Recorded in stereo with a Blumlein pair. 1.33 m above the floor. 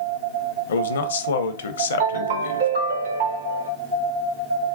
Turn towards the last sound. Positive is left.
turn(degrees=-65)